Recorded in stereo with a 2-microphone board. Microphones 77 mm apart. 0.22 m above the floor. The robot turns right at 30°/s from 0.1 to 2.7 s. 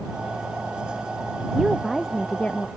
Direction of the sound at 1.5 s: 10° right.